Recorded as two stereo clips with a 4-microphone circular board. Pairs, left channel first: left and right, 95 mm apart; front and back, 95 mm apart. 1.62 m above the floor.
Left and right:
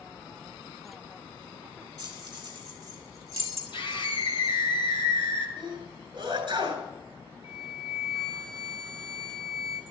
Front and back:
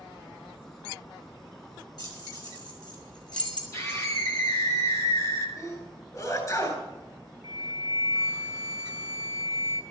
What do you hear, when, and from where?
2.0 s keys jangling: 45° right, 6.5 m; by 3.6 s 35° right, 6 m
3.7 s a scream: 60° left, 7 m
5.6 s a sneeze: 55° right, 8.5 m
7.4 s a flute: 50° right, 2.5 m